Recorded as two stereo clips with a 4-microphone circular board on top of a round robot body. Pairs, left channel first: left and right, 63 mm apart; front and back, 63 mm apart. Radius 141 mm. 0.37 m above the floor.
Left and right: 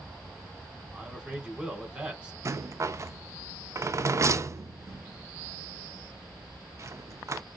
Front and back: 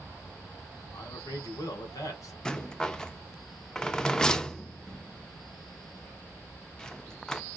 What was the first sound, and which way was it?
A man speaking, 20° right.